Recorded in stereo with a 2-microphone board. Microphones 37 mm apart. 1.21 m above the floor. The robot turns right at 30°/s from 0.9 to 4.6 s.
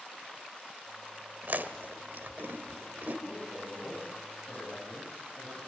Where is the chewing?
60° right (ahead or behind), 1.8 m; by 3.1 s 55° right (ahead or behind), 1.8 m.